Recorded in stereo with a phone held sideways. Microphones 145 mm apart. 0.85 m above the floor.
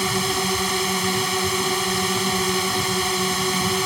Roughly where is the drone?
Centre.